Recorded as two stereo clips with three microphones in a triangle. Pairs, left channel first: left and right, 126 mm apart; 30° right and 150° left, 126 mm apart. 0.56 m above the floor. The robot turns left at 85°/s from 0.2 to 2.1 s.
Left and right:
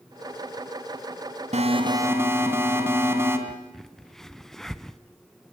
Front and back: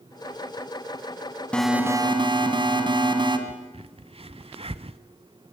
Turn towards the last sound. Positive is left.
turn(degrees=180)